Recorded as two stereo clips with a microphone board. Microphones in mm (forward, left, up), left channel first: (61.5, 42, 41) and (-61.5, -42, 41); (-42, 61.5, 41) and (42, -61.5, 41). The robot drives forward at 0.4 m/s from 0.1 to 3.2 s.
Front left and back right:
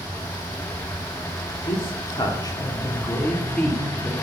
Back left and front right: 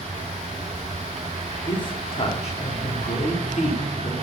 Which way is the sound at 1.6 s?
75° left.